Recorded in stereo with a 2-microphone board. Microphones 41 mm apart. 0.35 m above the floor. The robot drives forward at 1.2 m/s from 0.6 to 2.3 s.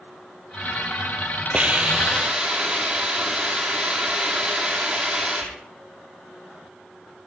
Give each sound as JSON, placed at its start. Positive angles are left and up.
{"t": 1.5, "sound": "a hiss", "side_deg": -35, "distance_m": 1.6}